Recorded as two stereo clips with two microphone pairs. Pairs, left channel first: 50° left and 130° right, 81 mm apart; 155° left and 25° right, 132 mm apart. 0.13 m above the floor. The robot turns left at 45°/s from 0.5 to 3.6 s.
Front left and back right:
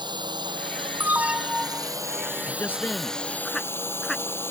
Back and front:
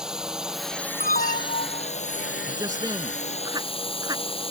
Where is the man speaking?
20° left; by 4.2 s 35° right.